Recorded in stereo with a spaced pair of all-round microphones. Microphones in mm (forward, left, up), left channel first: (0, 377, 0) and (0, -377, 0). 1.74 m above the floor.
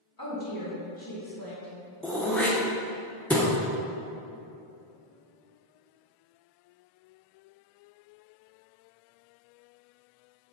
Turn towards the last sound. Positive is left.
turn(degrees=0)  # may be behind; listen again after turning